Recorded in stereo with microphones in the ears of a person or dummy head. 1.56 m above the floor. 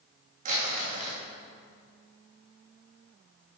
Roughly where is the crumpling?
Right.